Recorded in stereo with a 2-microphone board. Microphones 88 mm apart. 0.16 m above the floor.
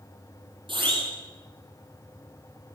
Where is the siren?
70° right (ahead or behind), 7.5 m.